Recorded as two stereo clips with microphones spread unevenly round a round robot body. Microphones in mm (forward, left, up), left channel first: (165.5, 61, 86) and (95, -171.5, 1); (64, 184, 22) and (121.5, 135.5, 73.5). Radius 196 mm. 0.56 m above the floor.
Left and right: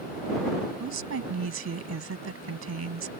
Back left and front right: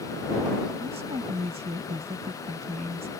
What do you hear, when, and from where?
0.8 s a woman speaking: 85° right